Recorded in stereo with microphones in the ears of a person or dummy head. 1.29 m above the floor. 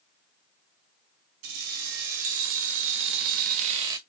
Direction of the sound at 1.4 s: 75° right (ahead or behind).